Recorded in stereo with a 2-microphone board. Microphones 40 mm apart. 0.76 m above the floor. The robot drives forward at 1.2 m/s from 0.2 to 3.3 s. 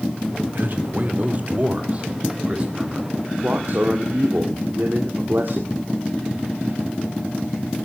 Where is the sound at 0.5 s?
55° right (ahead or behind), 2.5 m; by 3.1 s 25° right (ahead or behind), 4.5 m.